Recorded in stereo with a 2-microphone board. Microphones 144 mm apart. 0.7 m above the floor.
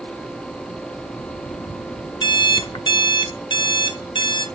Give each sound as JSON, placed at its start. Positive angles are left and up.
{"t": 2.2, "sound": "an alarm clock", "side_deg": 30, "distance_m": 0.9}